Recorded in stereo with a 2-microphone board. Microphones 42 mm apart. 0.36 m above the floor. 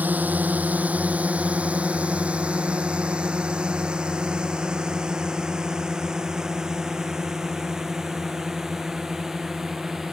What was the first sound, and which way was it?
A drone, 40° right (ahead or behind).